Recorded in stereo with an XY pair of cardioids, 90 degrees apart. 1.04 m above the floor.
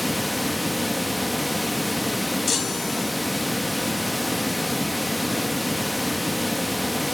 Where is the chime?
50° left, 5.5 m.